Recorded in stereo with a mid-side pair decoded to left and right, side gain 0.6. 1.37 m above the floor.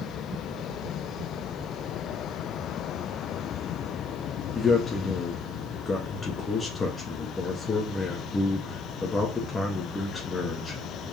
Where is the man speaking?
30° left, 1.3 m.